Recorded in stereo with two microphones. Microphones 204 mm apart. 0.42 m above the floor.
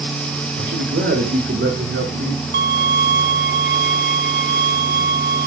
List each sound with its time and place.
0.6 s a man speaking: 80° right, 8.5 m; by 2.4 s 65° right (ahead or behind), 7 m
2.5 s a violin: 60° right (ahead or behind), 1.6 m